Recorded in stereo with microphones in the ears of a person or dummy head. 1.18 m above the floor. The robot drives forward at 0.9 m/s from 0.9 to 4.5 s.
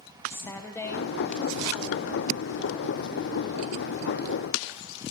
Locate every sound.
0.3 s a woman speaking: 20° left (ahead or behind), 0.8 m; by 2.3 s 10° left (ahead or behind), 1.9 m